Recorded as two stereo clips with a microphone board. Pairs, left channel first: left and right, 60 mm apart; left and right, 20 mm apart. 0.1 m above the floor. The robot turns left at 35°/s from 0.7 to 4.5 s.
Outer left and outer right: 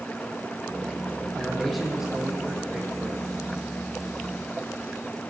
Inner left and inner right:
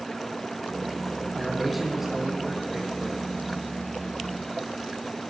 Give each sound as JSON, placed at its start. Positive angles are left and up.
{"t": 1.3, "sound": "a man speaking", "azimuth_deg": 15, "distance_m": 4.0}